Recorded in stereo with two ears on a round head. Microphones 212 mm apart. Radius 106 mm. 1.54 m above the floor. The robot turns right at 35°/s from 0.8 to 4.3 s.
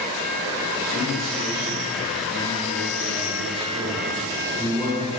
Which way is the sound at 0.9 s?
135° right.